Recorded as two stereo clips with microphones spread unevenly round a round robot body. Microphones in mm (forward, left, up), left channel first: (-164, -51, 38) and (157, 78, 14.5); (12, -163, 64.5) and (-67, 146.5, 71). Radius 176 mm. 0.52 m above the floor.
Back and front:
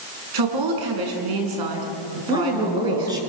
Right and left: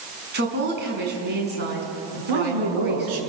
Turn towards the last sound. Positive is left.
turn(degrees=100)